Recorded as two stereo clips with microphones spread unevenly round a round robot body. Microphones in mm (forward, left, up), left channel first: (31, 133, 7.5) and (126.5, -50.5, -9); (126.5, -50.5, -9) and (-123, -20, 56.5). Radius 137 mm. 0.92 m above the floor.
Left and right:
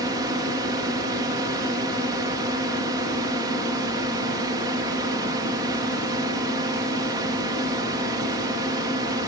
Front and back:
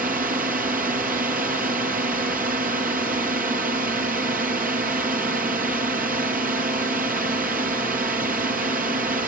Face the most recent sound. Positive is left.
turn(degrees=-130)